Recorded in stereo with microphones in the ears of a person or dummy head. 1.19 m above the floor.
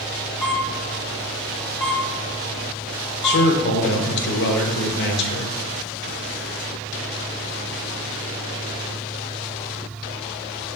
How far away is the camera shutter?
About 1.1 m.